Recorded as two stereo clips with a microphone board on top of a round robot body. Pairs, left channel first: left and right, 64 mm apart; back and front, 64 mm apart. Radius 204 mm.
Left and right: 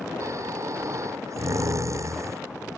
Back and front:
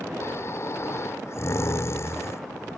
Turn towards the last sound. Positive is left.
turn(degrees=-135)